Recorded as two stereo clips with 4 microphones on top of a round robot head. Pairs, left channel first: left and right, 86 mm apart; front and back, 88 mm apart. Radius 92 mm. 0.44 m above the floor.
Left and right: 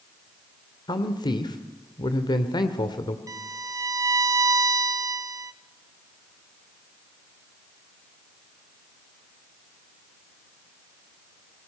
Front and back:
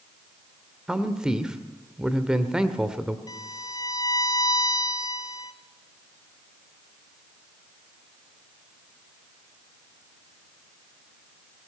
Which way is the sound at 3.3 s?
40° right.